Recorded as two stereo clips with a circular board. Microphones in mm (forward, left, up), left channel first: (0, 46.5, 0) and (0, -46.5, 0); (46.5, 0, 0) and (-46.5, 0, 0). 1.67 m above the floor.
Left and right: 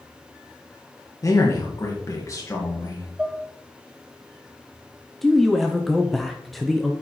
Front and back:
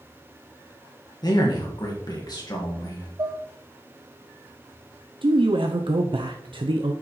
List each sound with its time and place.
1.2 s a man speaking: 40° left, 1.6 m
3.2 s dishes clattering: 165° right, 0.9 m
5.2 s a man speaking: straight behind, 0.7 m